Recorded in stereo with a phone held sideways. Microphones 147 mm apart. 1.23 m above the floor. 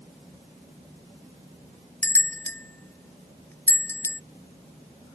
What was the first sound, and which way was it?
A bell, 15° left (ahead or behind).